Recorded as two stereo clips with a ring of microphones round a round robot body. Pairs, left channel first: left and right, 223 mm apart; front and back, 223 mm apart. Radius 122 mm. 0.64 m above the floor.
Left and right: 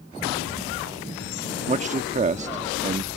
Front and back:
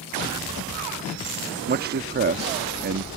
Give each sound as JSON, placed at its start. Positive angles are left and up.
{"t": 1.7, "sound": "a man speaking", "azimuth_deg": -145}